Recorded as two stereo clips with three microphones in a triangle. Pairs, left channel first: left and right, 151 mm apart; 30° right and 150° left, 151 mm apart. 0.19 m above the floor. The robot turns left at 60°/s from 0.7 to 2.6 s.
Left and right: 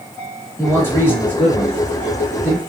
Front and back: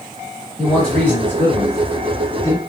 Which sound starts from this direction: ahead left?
A man speaking, at 0.6 s.